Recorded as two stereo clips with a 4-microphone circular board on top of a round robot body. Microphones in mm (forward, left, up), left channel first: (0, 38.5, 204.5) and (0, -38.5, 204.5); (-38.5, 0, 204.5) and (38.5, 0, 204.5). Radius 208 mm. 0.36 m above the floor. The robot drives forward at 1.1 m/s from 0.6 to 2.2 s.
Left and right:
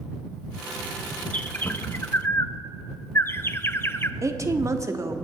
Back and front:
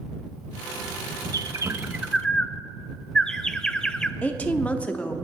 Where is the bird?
20° left, 1.2 m; by 4.1 s 110° left, 0.8 m.